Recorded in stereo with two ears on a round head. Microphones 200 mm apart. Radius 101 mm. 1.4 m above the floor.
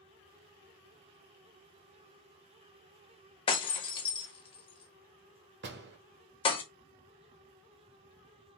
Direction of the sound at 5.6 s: 55° right (ahead or behind).